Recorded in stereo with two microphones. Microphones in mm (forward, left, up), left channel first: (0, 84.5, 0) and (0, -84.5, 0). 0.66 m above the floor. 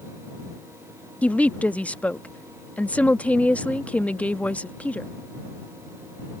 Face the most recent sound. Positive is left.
turn(degrees=10)  # may be behind; listen again after turning